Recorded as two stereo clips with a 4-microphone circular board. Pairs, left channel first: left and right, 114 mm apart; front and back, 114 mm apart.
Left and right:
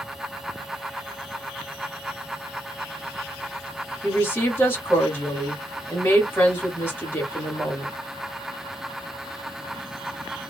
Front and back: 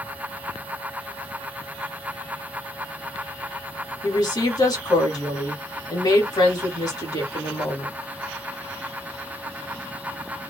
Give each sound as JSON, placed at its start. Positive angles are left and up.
{"t": 4.0, "sound": "a woman speaking", "azimuth_deg": 30, "distance_m": 1.5}